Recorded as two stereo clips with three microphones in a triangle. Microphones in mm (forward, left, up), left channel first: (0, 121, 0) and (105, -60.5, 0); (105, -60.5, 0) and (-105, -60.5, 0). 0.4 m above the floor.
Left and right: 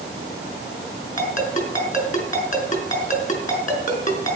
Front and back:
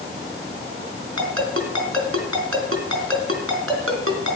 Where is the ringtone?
175° left, 3 m.